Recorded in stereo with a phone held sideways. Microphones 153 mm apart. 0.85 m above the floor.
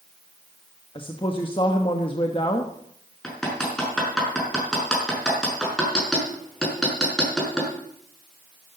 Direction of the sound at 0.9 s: 35° left (ahead or behind).